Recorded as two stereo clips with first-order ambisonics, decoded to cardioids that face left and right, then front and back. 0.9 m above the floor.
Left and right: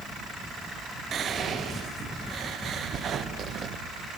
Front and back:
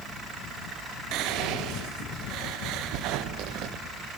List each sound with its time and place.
1.1 s whispering: 150° right, 0.7 m